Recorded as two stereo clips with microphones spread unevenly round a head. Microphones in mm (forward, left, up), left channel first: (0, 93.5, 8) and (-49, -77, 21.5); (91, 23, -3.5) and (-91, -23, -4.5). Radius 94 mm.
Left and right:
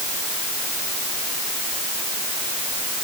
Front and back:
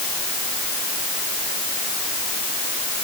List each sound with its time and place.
Only background noise.